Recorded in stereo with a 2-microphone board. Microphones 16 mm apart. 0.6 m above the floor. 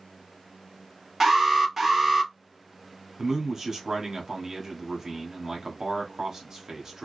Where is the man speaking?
40° right (ahead or behind), 1.1 m.